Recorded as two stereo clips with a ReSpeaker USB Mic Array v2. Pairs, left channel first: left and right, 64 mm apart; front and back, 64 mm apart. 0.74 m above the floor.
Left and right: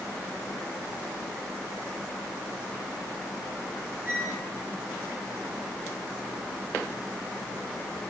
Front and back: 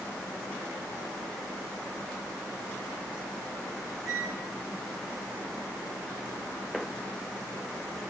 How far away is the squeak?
About 8.5 m.